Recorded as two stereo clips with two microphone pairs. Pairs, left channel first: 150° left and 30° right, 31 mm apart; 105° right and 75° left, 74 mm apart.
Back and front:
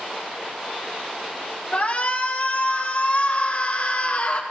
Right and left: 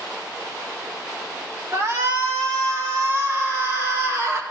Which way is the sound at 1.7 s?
115° left.